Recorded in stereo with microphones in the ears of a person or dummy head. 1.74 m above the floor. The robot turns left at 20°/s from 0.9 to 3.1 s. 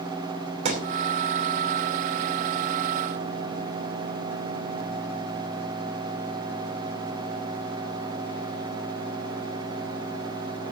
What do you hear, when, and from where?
0.7 s a thud: 40° right (ahead or behind), 2.5 m